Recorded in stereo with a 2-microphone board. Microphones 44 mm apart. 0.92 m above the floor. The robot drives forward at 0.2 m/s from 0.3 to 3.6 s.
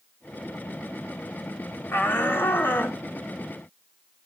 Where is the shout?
60° left (ahead or behind), 2.5 m; by 3.0 s 55° left (ahead or behind), 3 m.